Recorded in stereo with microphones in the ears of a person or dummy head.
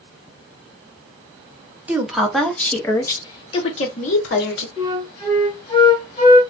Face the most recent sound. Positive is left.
turn(degrees=35)  # may be behind; listen again after turning